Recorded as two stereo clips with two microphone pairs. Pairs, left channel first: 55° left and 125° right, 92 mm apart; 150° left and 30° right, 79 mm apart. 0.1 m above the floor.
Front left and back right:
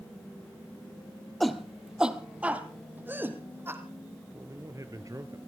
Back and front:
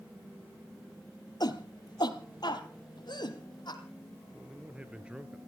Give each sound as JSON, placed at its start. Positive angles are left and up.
{"t": 1.4, "sound": "a shout", "azimuth_deg": 140, "distance_m": 2.5}
{"t": 4.3, "sound": "a man speaking", "azimuth_deg": -105, "distance_m": 2.0}